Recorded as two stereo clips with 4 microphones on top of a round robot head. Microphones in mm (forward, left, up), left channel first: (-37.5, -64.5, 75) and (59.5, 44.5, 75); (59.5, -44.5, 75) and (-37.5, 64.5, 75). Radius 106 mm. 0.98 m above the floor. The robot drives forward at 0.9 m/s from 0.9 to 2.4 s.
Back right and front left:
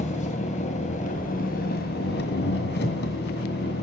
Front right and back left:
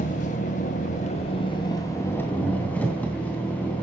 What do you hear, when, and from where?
0.0 s an engine running: 90° right, 1.8 m; by 3.8 s 130° right, 2.5 m